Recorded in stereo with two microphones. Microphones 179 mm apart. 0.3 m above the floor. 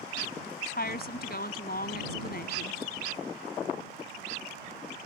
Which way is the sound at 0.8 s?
60° left (ahead or behind).